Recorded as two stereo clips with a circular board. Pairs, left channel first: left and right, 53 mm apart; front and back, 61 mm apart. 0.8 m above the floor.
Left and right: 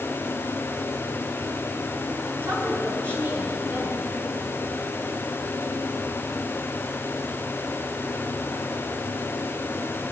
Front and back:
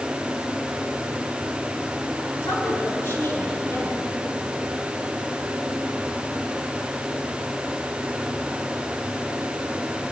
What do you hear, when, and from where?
2.4 s a woman speaking: 45° right, 9.5 m